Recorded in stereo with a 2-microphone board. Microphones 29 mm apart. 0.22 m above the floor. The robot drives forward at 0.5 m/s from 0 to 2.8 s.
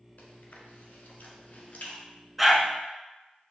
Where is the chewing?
65° left (ahead or behind), 1.1 m; by 2.0 s 50° left (ahead or behind), 1.3 m.